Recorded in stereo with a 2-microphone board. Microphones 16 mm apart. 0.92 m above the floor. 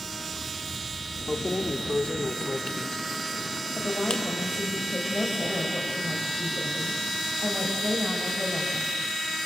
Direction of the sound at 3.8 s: 30° left (ahead or behind).